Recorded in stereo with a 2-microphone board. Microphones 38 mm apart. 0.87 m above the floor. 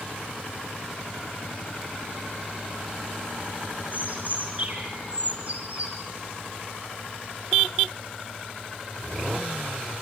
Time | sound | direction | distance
3.9 | a bird | 40° right (ahead or behind) | 4.5 m